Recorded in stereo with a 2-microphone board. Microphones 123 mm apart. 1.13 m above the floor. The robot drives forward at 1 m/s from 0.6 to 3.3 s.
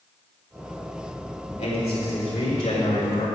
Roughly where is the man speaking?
Left.